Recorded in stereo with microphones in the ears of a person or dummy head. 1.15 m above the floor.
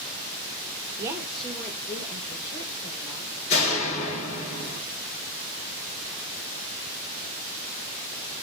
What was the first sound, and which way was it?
A woman speaking, 25° right (ahead or behind).